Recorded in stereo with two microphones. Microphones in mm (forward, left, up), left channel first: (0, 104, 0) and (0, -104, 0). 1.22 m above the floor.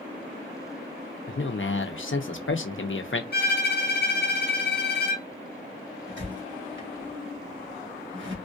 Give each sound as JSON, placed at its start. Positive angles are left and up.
{"t": 1.3, "sound": "a man speaking", "side_deg": 70, "distance_m": 0.8}
{"t": 3.3, "sound": "a violin", "side_deg": 50, "distance_m": 1.5}
{"t": 6.1, "sound": "a squeak", "side_deg": -65, "distance_m": 1.6}